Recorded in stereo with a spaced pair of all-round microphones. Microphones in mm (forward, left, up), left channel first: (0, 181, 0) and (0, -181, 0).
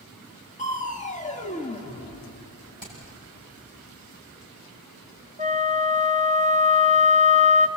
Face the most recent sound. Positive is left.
turn(degrees=-20)  # may be behind; listen again after turning